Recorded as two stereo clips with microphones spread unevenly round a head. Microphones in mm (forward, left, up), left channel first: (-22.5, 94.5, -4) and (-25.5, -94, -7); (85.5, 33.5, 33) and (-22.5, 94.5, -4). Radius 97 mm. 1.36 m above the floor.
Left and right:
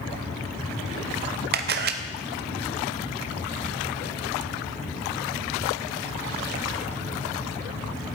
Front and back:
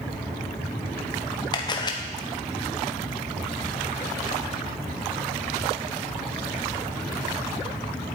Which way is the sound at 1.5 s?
100° right.